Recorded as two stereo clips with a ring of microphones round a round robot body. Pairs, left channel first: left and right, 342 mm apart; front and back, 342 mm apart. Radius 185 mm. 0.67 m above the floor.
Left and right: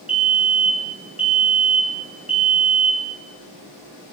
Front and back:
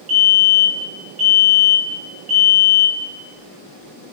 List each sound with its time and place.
0.1 s a fire alarm: 155° right, 7 m